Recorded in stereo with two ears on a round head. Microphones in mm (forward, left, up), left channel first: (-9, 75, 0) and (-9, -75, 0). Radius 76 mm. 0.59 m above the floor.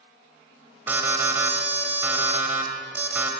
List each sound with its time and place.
0.9 s an alarm: 10° right (ahead or behind), 1.9 m